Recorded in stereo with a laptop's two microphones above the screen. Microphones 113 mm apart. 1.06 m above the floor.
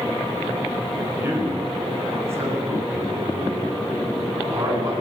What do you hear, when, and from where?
1.1 s a man speaking: 20° right (ahead or behind), 6.5 m; by 4.9 s 30° right (ahead or behind), 10 m